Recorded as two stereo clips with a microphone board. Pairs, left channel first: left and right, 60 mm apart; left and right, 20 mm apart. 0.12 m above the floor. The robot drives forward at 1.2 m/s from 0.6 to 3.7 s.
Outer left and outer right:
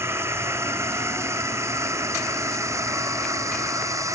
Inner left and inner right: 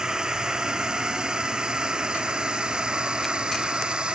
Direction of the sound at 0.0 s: 45° right (ahead or behind).